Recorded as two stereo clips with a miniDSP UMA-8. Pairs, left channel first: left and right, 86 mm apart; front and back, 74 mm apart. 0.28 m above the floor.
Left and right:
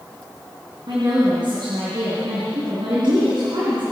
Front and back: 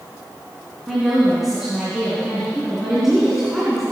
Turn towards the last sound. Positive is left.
turn(degrees=-95)